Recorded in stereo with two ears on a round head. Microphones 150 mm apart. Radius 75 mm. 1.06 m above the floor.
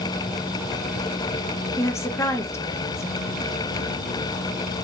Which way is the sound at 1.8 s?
15° left (ahead or behind).